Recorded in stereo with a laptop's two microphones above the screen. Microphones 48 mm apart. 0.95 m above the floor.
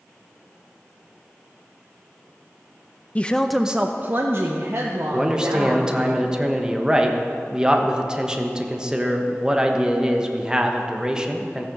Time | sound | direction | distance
3.1 | a woman speaking | 25° left (ahead or behind) | 0.5 m
5.1 | a man speaking | 15° right (ahead or behind) | 1.0 m